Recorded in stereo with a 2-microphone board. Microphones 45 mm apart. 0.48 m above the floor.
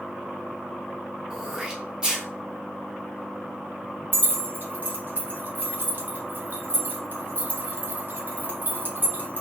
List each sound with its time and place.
1.3 s throat clearing: 20° right (ahead or behind), 0.8 m
4.1 s keys jangling: 45° right (ahead or behind), 0.8 m